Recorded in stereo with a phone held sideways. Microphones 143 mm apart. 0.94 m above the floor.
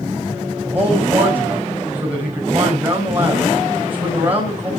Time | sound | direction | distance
0.6 | a man speaking | 15° right (ahead or behind) | 4.5 m